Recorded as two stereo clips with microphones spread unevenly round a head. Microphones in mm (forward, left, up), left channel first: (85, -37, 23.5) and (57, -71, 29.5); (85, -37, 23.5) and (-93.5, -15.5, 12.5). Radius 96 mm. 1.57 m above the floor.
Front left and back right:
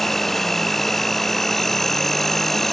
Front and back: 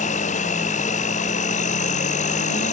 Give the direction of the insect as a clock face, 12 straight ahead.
1 o'clock.